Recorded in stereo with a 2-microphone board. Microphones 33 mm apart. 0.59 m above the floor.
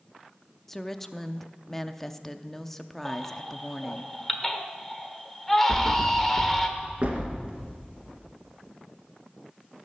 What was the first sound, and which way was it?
A woman speaking, 10° left (ahead or behind).